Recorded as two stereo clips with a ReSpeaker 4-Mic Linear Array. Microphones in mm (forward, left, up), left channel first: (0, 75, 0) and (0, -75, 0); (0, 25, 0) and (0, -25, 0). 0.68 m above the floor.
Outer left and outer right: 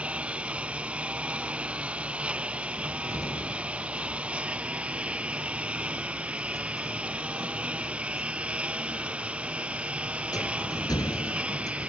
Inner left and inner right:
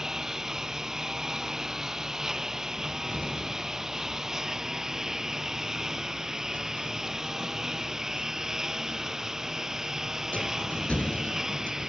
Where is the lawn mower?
10° right (ahead or behind).